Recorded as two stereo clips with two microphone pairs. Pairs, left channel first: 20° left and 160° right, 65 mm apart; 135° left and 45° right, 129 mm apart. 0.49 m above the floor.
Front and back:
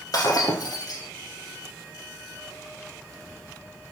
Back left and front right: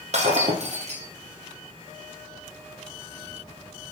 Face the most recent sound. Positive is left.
turn(degrees=-10)